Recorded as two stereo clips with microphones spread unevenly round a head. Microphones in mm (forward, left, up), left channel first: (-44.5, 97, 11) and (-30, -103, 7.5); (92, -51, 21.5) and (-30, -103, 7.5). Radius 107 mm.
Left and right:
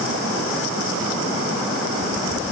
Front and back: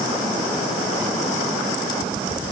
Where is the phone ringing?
No phone ringing in this recording.